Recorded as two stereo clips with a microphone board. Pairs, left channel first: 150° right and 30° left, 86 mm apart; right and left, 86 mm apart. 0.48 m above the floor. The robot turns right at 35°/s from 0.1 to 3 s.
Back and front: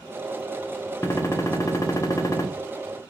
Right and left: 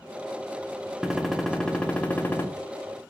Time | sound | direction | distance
1.0 | a gunshot | 175° left | 0.6 m